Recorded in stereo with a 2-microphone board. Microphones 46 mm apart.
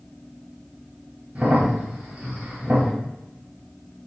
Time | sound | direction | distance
1.4 | a crack | 25° right (ahead or behind) | 1.2 m